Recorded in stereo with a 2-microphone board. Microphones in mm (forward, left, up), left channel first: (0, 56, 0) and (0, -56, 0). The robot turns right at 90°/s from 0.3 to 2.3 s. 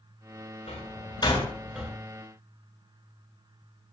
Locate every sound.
0.7 s a door slam: 85° left, 9 m; by 1.9 s 25° right (ahead or behind), 9 m